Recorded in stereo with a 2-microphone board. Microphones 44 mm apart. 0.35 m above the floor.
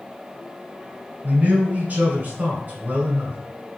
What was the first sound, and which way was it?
A man speaking, 40° right (ahead or behind).